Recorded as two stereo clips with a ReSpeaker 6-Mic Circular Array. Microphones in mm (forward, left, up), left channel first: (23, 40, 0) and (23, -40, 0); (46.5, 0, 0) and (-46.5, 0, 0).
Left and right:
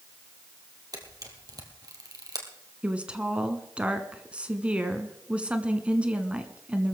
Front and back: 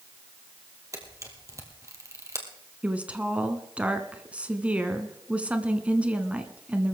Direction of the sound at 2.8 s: 135° right.